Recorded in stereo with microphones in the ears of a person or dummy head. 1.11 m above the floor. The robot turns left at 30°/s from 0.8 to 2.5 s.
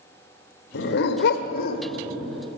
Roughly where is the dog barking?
Left.